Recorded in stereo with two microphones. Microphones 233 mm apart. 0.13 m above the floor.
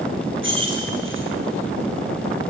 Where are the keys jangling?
60° right (ahead or behind), 2.5 m.